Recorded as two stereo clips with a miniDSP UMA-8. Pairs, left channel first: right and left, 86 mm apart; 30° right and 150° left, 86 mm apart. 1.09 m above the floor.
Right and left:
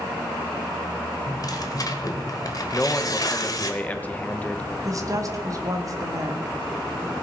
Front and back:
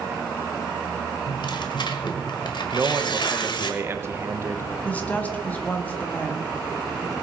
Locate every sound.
1.3 s tearing paper: 50° right, 1.6 m
2.7 s a man speaking: 160° right, 1.2 m
4.8 s a woman speaking: 40° left, 1.7 m